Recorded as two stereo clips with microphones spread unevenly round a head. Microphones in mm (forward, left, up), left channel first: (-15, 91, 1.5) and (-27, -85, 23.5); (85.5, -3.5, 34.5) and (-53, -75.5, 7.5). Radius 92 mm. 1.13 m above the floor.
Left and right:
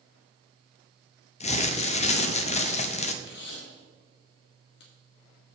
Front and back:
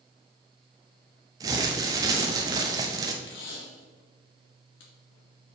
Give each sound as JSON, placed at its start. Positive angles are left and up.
{"t": 1.4, "sound": "crumpling", "azimuth_deg": 135, "distance_m": 0.8}
{"t": 3.2, "sound": "tape being pulled", "azimuth_deg": 55, "distance_m": 1.7}